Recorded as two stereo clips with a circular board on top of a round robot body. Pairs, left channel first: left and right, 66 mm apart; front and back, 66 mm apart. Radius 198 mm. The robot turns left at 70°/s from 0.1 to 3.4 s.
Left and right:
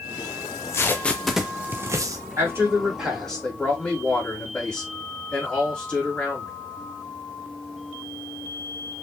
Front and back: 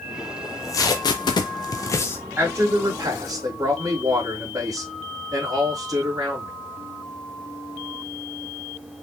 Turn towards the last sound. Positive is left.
turn(degrees=165)